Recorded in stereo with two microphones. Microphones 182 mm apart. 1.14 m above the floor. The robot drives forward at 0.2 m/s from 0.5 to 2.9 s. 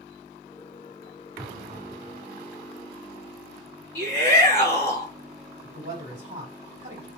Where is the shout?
65° right (ahead or behind), 2.5 m.